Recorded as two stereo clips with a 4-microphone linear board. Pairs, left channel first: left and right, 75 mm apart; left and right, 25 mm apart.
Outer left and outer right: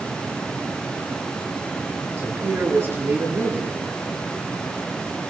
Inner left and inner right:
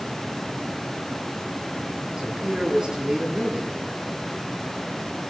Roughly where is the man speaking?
Right.